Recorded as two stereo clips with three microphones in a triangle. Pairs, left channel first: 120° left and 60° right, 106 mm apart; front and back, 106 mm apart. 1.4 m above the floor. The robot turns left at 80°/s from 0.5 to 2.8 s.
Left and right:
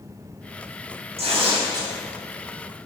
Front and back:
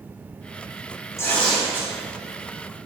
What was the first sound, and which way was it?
Tearing paper, 60° right.